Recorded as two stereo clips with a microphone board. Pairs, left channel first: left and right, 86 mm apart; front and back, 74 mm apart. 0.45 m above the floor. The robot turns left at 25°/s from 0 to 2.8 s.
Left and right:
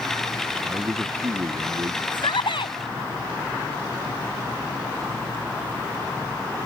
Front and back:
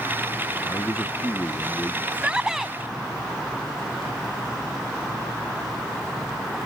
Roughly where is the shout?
Left.